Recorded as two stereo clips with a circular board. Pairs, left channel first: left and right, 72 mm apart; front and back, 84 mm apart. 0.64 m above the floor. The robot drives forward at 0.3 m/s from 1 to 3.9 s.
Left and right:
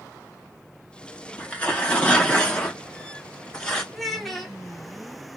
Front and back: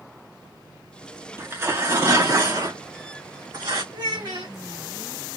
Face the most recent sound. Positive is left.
turn(degrees=180)